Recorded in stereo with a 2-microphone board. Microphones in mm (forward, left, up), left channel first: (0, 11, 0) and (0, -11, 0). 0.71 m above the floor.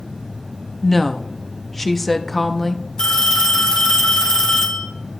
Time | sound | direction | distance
0.8 | a woman speaking | 15° left (ahead or behind) | 0.6 m
3.0 | a phone ringing | 35° left (ahead or behind) | 4 m